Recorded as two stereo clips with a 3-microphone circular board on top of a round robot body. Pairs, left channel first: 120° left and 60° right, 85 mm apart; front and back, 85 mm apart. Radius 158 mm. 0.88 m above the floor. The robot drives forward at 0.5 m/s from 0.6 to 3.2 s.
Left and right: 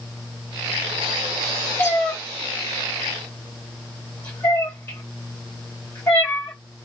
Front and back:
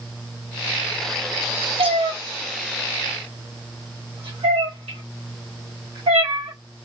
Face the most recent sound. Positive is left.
turn(degrees=-175)